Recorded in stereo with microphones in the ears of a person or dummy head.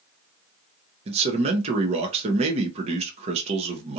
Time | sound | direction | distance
1.1 | a man speaking | 30° right (ahead or behind) | 0.5 m